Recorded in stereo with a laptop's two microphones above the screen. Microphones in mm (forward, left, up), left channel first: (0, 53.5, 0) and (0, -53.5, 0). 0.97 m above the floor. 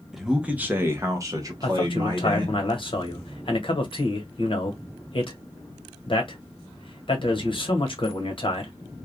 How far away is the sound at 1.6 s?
About 1.1 m.